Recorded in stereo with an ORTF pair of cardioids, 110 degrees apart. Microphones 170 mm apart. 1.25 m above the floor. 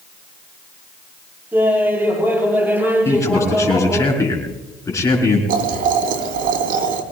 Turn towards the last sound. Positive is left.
turn(degrees=-60)